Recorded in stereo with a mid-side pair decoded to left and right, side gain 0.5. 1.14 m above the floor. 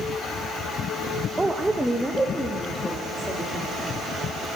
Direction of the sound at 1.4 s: 15° right.